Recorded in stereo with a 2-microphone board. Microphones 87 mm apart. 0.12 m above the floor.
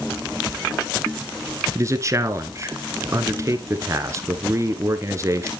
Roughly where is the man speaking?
Right.